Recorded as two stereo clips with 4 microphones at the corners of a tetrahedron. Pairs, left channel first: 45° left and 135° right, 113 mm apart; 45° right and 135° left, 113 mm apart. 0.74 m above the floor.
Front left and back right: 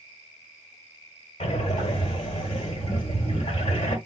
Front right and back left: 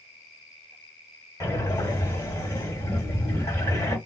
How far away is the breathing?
About 1.3 m.